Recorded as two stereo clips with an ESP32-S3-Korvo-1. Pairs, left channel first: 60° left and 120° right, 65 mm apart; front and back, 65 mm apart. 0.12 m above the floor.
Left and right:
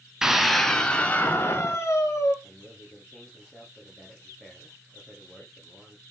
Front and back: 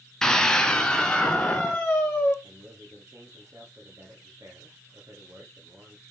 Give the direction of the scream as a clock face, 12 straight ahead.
2 o'clock.